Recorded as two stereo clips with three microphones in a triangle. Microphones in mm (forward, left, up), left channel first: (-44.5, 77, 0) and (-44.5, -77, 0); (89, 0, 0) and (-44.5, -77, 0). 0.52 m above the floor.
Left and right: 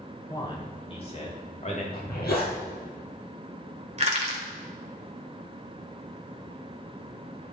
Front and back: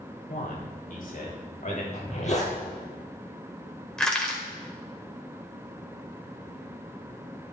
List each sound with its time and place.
0.3 s a man speaking: 30° left, 2.5 m; by 1.8 s 55° left, 3.5 m
1.9 s a zipper: 75° left, 3.5 m
4.0 s crushing: 55° right, 2.0 m